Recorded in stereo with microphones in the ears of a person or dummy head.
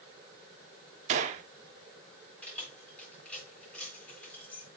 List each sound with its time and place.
1.1 s a gunshot: 40° right (ahead or behind), 1.0 m
2.4 s keys jangling: 10° left (ahead or behind), 3.5 m